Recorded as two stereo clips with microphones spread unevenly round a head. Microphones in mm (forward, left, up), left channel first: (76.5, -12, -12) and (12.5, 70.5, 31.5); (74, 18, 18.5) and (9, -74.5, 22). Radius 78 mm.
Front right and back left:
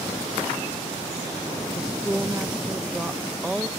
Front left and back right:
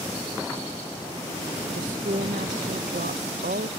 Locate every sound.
1.7 s a woman speaking: 150° right